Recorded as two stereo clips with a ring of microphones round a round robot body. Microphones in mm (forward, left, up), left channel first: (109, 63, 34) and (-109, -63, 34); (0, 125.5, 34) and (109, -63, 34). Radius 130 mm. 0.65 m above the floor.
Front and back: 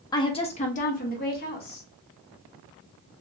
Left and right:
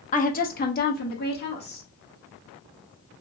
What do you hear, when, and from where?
0.1 s a woman speaking: 95° left, 0.7 m; by 1.9 s 80° left, 1.6 m